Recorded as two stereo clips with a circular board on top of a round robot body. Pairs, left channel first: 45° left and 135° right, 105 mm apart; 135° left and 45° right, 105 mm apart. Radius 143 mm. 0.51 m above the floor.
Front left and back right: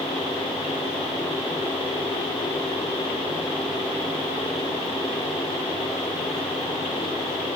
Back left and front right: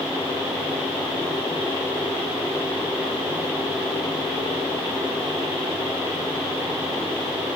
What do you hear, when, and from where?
Only background noise.